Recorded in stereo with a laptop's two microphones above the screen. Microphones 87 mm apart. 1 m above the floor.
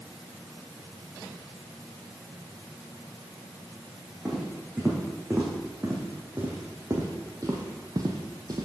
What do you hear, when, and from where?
4.2 s footsteps: 10° right (ahead or behind), 3 m; by 8.7 s 50° right (ahead or behind), 1.4 m